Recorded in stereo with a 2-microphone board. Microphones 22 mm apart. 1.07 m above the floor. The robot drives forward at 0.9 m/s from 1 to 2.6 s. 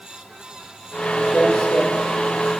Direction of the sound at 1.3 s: 70° left (ahead or behind).